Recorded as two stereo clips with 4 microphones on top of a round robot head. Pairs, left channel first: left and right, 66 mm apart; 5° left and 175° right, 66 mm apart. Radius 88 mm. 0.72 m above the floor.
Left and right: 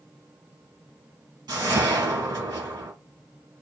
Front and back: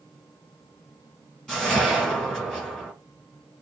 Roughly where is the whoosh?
Right.